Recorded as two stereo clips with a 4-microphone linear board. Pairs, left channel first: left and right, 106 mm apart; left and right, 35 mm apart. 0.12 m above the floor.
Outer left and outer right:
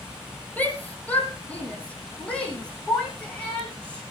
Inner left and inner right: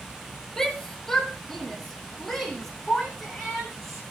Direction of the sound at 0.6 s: 15° left (ahead or behind).